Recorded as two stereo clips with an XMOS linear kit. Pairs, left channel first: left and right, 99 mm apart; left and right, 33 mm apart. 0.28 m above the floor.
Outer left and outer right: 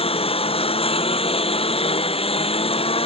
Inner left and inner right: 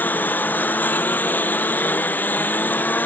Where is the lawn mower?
75° left (ahead or behind).